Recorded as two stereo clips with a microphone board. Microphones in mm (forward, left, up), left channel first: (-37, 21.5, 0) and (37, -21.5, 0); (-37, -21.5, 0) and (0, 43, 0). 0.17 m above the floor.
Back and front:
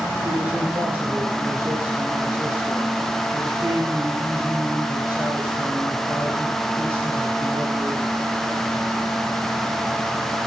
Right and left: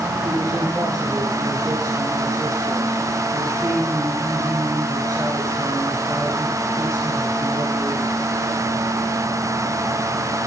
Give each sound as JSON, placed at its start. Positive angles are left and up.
{"t": 0.2, "sound": "a man speaking", "azimuth_deg": 35, "distance_m": 2.5}